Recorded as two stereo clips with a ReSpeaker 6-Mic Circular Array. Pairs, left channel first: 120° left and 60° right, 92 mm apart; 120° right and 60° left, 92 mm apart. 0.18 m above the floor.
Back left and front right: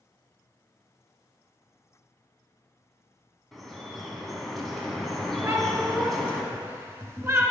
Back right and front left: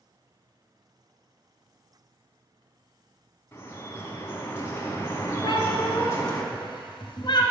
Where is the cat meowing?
120° right, 0.9 m.